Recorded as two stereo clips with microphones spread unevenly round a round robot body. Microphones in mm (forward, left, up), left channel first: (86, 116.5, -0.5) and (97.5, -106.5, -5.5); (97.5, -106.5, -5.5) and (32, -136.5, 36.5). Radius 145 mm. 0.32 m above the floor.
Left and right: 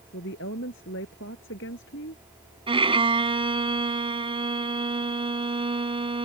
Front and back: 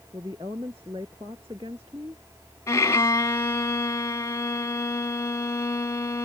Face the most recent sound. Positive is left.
turn(degrees=-20)